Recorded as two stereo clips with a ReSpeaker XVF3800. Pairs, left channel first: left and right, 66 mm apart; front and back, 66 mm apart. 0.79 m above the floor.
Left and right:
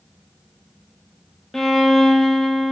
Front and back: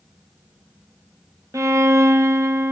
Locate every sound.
1.5 s a violin: 175° left, 0.5 m